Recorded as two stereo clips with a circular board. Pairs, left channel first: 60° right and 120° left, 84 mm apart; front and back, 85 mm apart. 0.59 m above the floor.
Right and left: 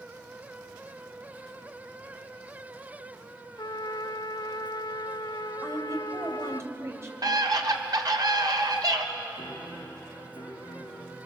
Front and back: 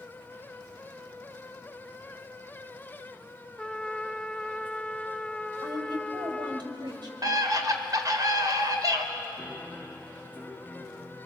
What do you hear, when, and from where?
3.6 s a trumpet: 75° right, 0.6 m
5.6 s a woman speaking: 170° left, 3.5 m
7.2 s a scream: 145° left, 2 m
9.4 s a piano: 90° right, 4 m